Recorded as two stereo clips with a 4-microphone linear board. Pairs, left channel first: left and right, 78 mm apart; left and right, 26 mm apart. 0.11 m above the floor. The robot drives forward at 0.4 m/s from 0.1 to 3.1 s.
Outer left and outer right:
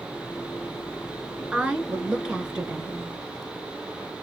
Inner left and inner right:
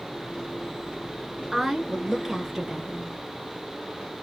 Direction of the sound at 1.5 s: 15° right (ahead or behind).